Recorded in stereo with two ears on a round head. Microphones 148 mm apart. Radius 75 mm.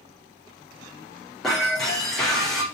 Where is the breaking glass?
Centre (ahead or behind), 5 m.